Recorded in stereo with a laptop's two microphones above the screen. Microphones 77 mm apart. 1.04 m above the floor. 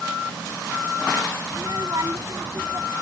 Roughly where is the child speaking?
Right.